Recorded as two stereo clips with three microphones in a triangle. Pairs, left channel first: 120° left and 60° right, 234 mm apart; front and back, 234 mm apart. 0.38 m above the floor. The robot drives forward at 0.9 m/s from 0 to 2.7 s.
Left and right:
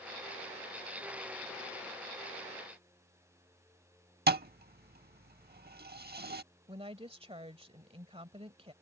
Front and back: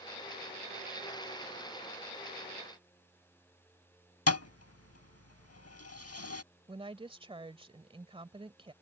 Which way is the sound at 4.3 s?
10° right.